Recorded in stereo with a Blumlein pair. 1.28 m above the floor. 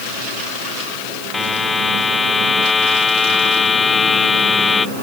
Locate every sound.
1.3 s a buzzer: 15° left